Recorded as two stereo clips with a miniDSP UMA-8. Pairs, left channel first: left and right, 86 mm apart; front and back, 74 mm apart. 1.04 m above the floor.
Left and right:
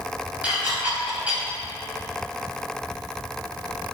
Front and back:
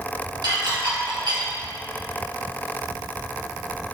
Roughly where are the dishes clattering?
Behind.